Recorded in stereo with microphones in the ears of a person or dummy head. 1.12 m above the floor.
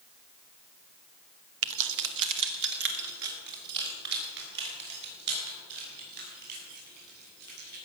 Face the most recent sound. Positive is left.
turn(degrees=-55)  # may be behind; listen again after turning